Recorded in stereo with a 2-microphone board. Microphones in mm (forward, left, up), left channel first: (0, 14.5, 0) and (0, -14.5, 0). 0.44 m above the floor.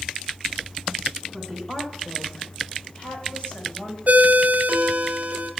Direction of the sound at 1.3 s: 10° left (ahead or behind).